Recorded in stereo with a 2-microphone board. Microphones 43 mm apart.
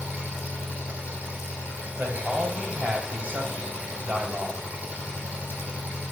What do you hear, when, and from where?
0.0 s an engine running: 35° right (ahead or behind), 5 m
2.0 s a man speaking: 40° right (ahead or behind), 2.5 m